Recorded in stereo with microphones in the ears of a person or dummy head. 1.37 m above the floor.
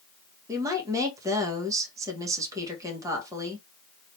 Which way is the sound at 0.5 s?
20° right (ahead or behind).